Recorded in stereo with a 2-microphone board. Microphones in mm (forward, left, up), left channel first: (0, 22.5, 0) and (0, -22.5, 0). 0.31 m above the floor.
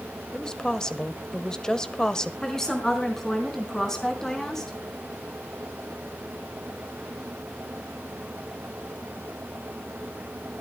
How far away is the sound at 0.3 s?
About 1.0 m.